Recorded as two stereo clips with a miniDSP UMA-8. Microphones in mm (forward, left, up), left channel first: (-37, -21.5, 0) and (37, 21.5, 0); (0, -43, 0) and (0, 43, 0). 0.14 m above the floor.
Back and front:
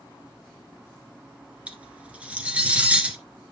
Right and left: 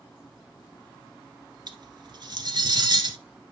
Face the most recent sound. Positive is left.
turn(degrees=105)